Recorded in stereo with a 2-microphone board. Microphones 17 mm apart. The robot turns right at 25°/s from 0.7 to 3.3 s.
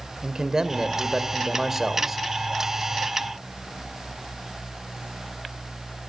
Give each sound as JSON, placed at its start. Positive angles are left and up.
{"t": 0.2, "sound": "a man speaking", "azimuth_deg": -50, "distance_m": 1.7}